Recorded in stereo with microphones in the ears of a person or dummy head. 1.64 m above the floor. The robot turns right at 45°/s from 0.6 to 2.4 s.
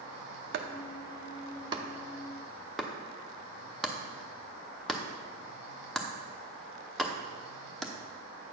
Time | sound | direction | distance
0.5 | chopping | 65° right (ahead or behind) | 0.7 m